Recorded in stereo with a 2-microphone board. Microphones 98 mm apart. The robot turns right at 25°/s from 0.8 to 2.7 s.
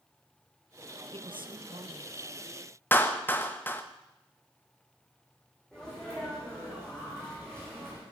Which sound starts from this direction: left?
A clap, at 2.9 s.